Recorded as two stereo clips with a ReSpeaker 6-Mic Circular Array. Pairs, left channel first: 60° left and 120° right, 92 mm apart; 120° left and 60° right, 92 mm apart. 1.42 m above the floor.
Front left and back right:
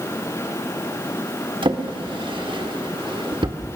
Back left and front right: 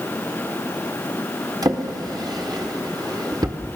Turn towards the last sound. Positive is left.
turn(degrees=-105)